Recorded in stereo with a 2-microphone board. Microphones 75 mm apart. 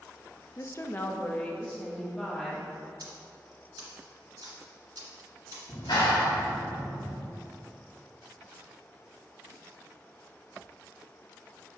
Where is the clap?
80° left, 1.7 m.